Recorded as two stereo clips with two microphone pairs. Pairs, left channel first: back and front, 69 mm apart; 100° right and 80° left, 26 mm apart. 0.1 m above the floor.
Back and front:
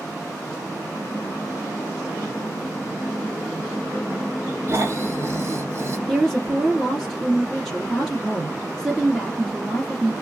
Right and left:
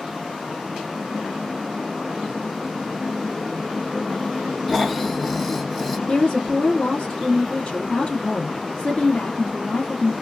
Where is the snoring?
30° right, 0.8 m.